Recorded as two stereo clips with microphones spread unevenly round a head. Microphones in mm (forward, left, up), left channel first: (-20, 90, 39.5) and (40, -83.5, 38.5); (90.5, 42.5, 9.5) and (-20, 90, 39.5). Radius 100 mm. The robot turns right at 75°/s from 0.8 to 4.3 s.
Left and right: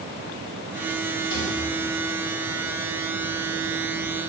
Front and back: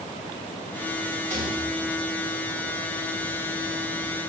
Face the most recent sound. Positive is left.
turn(degrees=-10)